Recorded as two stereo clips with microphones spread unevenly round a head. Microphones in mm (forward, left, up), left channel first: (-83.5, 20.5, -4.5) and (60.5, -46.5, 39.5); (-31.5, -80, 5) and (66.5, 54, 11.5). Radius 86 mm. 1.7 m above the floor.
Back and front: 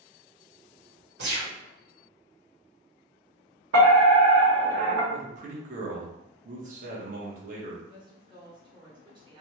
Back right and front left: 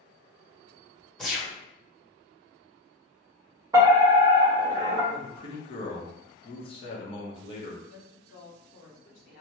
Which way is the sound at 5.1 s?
65° right.